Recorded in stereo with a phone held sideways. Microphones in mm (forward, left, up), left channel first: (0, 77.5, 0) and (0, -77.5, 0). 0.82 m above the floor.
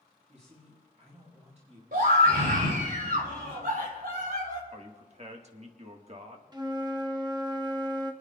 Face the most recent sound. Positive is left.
turn(degrees=-25)  # may be behind; listen again after turning